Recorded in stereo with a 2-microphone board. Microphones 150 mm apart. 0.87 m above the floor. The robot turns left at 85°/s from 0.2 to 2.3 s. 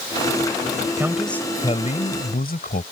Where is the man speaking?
160° right; by 2.8 s 90° left.